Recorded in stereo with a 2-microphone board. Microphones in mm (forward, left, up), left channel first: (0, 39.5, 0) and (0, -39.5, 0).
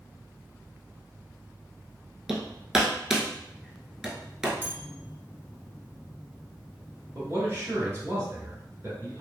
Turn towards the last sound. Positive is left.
turn(degrees=-30)  # may be behind; listen again after turning